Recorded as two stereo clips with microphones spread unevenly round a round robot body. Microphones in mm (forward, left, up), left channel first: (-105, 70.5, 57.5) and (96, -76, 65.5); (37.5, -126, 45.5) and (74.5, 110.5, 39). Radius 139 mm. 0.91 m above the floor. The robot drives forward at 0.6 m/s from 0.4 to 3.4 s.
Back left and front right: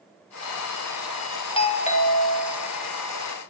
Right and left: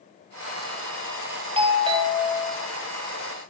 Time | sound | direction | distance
1.6 | a doorbell | 110° left | 1.4 m